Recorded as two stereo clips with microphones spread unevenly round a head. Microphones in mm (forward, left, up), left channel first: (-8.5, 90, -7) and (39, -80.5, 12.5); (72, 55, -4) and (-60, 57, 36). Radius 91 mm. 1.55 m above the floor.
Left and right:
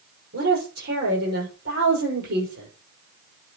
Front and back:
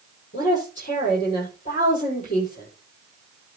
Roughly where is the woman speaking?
Ahead right.